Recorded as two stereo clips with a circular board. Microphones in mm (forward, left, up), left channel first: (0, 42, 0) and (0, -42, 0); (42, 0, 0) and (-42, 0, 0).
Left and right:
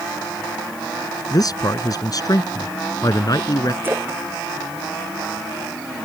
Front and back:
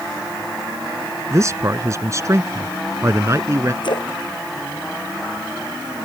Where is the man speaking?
130° left.